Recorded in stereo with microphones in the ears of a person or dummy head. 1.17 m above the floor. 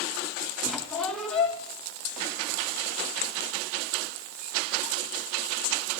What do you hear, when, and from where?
0.6 s a squeak: 5° left (ahead or behind), 1.6 m